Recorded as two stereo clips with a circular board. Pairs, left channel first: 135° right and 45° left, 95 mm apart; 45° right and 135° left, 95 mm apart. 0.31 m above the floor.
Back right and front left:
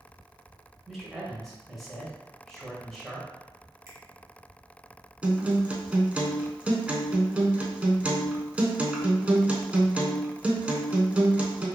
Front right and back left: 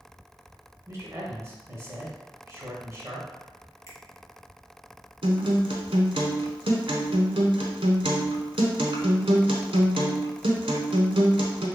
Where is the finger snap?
Straight ahead, 1.1 m.